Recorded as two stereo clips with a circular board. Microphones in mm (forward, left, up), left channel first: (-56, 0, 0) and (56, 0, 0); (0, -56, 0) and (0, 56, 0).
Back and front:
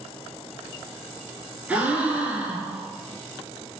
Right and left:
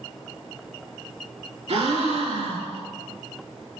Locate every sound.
1.7 s a gasp: 80° left, 0.7 m